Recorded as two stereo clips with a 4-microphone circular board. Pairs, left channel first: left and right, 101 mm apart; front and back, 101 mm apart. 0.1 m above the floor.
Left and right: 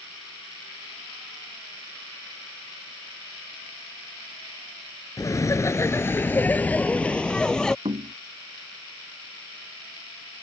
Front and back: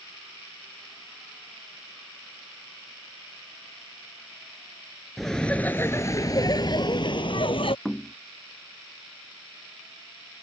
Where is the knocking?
85° right.